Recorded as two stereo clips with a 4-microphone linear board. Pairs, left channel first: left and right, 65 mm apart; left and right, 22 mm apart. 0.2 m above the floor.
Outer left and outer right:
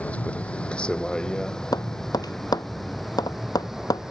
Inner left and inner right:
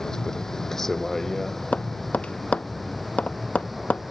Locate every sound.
0.0 s a vehicle: 20° left (ahead or behind); by 4.1 s 5° right (ahead or behind)
1.7 s tapping: 80° left